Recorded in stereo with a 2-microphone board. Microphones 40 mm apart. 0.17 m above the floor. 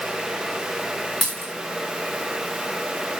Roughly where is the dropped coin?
Centre.